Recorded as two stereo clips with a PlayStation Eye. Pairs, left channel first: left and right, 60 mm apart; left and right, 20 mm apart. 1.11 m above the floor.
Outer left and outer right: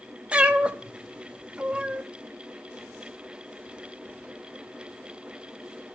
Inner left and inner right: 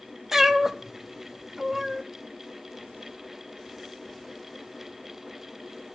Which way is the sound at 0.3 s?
20° right (ahead or behind).